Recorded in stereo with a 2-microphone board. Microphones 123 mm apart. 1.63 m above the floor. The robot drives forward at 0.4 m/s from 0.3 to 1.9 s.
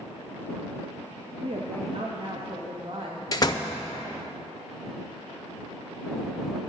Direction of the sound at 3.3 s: 35° left (ahead or behind).